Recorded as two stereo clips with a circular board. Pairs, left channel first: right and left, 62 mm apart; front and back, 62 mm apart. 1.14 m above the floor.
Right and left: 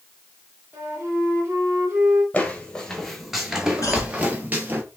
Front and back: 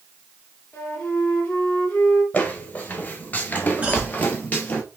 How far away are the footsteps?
About 1.3 m.